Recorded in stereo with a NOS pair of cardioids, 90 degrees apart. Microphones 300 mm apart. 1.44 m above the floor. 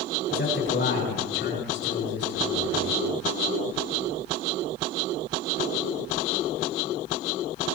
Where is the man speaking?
40° left, 6 m.